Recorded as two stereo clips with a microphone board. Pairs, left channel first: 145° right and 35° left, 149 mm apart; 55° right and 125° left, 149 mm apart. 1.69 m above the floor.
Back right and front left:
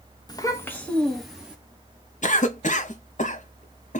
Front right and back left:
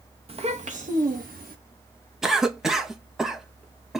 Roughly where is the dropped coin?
No dropped coin in this recording.